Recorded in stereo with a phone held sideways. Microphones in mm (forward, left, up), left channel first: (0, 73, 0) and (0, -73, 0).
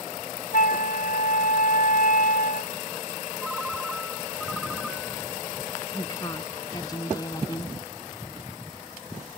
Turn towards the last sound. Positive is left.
turn(degrees=25)  # may be behind; listen again after turning